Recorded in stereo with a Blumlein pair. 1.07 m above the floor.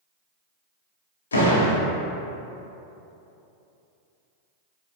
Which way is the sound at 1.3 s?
70° left.